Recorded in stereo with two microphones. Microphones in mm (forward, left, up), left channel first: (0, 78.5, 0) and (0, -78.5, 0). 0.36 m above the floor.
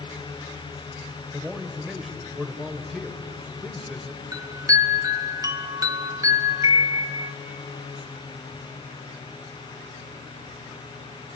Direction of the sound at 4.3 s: 20° right (ahead or behind).